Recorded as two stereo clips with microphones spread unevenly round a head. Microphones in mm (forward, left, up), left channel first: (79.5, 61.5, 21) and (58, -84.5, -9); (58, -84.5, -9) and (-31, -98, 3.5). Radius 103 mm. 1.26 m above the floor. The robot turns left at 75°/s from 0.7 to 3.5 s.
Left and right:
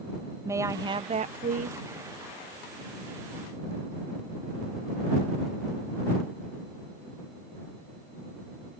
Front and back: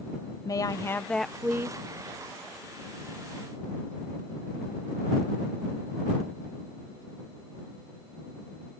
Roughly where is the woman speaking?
Ahead right.